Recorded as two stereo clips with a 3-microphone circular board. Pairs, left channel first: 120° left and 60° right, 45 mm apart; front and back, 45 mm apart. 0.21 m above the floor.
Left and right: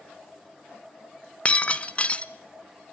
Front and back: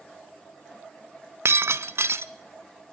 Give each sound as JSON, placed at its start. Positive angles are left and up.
{"t": 1.4, "sound": "breaking glass", "azimuth_deg": 180, "distance_m": 0.7}